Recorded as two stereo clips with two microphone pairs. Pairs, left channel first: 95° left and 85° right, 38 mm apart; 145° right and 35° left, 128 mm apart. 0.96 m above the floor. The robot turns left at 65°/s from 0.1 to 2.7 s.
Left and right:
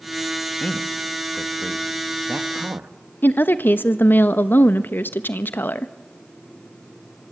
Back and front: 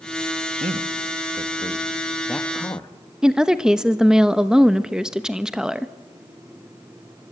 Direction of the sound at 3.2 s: 115° left.